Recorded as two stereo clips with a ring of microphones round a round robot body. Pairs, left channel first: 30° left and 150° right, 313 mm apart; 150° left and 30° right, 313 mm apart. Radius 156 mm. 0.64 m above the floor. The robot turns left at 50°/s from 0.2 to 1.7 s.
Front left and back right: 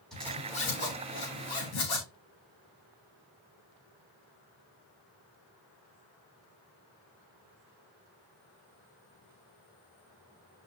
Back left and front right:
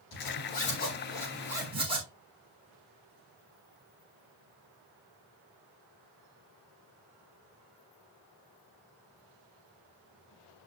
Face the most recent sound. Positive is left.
turn(degrees=45)